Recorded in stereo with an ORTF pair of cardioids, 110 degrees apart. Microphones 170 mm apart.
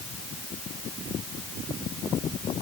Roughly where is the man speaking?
No man speaking in this recording.